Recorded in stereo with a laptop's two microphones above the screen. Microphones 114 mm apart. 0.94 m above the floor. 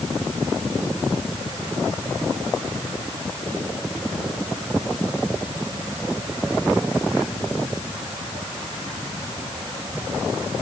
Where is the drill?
No drill in this recording.